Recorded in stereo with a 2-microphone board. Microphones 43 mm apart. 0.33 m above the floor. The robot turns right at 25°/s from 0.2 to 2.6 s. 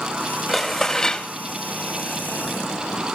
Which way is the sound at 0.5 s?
Centre (ahead or behind).